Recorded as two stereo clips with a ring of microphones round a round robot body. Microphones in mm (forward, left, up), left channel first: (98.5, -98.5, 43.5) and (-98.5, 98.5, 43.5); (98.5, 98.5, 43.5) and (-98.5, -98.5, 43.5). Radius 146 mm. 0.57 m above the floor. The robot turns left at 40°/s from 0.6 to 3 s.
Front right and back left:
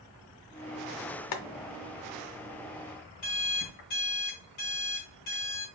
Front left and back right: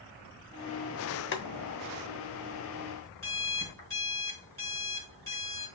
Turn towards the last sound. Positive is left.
turn(degrees=-35)